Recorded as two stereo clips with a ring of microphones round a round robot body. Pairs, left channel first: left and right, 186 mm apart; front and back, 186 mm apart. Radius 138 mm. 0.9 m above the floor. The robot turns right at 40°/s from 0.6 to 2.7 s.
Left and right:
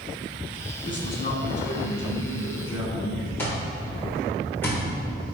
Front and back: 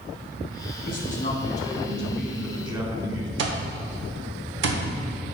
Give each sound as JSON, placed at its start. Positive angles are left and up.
{"t": 0.8, "sound": "a man speaking", "azimuth_deg": 40, "distance_m": 2.0}
{"t": 3.4, "sound": "an alarm clock", "azimuth_deg": 175, "distance_m": 0.9}